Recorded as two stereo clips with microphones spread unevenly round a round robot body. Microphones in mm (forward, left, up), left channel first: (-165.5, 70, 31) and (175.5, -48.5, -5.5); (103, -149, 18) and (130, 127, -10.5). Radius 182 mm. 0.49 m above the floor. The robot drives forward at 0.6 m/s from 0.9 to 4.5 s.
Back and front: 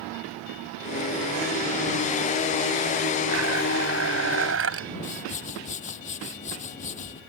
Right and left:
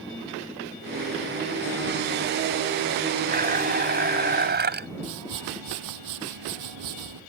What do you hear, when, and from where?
3.3 s a blender: 30° left; by 4.9 s 35° left
5.0 s a whoosh: 90° left